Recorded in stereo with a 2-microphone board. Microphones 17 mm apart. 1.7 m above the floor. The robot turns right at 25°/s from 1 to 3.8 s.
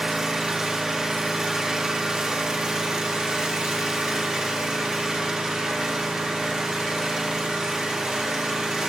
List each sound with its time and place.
0.0 s an engine running: 135° right, 1.5 m; by 8.9 s 65° right, 1.5 m